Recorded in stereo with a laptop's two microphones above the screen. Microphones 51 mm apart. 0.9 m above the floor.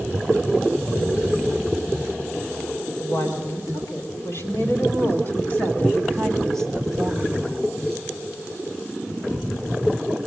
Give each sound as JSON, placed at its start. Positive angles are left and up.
{"t": 3.0, "sound": "a woman speaking", "side_deg": 60, "distance_m": 4.0}